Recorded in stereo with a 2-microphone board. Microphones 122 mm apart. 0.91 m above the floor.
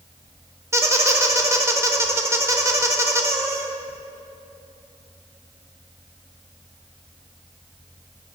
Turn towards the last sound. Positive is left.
turn(degrees=-25)  # may be behind; listen again after turning